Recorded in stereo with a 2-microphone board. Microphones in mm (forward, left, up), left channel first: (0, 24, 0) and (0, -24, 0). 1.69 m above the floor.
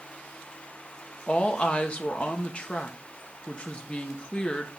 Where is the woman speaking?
30° left (ahead or behind), 1.6 m.